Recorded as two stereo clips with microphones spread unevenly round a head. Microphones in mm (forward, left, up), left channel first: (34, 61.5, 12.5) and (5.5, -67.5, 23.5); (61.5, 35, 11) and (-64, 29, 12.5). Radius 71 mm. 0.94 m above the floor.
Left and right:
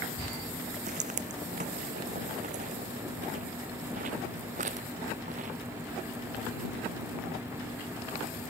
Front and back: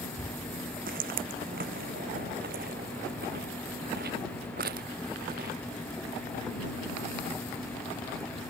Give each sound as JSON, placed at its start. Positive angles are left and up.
{"t": 0.9, "sound": "footsteps", "azimuth_deg": -145}